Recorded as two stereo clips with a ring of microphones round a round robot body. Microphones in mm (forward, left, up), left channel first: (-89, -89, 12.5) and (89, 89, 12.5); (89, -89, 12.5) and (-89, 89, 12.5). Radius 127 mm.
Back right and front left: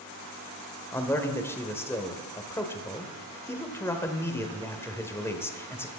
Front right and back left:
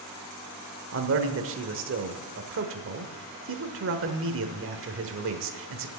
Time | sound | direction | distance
0.9 | a man speaking | 145° left | 1.1 m